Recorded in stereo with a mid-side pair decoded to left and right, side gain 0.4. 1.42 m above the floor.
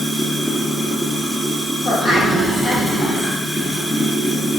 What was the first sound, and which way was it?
Running water, 5° left.